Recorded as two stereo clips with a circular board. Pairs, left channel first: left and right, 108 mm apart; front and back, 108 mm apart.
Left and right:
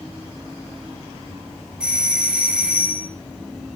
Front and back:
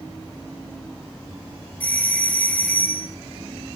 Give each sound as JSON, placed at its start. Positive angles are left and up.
{"t": 1.8, "sound": "a doorbell", "azimuth_deg": -30, "distance_m": 2.0}